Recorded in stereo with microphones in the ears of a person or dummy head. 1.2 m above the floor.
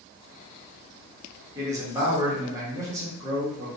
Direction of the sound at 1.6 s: 20° right (ahead or behind).